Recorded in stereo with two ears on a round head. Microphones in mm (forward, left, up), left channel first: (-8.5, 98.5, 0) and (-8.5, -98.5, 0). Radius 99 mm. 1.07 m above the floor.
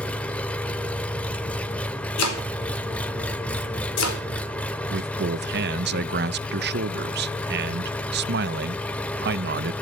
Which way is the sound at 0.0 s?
5° left (ahead or behind).